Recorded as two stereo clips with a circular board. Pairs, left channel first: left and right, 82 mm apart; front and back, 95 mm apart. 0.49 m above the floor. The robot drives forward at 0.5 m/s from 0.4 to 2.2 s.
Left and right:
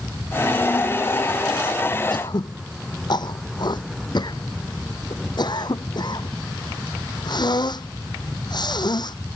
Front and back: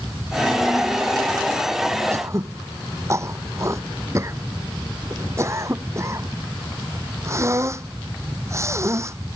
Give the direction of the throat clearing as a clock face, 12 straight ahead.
8 o'clock.